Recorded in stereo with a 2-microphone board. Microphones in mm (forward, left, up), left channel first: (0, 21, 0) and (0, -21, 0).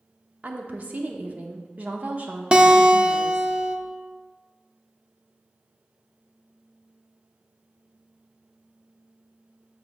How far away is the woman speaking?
About 0.8 m.